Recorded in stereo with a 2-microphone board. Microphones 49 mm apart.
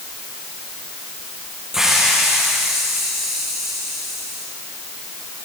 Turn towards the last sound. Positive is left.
turn(degrees=-10)  # may be behind; listen again after turning